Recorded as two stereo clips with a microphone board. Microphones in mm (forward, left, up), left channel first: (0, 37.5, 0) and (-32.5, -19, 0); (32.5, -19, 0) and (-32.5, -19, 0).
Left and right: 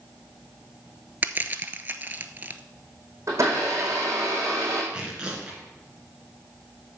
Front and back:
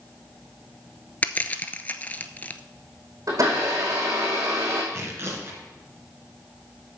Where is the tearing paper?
175° left, 2 m.